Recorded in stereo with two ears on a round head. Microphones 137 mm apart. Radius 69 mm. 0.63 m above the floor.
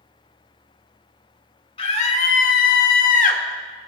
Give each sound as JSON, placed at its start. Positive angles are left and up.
{"t": 1.8, "sound": "a scream", "side_deg": 35, "distance_m": 1.9}